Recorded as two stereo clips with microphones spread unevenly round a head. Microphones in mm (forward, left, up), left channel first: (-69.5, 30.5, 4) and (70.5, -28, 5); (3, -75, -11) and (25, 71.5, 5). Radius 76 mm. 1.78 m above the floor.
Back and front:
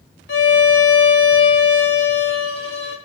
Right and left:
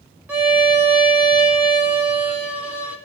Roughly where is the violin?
Behind left.